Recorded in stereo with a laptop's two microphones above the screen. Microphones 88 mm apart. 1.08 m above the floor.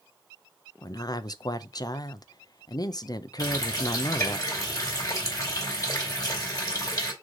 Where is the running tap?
40° left (ahead or behind), 3.5 m.